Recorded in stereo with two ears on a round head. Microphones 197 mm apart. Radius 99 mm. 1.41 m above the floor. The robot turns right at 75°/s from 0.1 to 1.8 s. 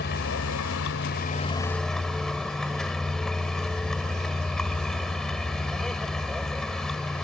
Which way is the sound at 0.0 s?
50° left.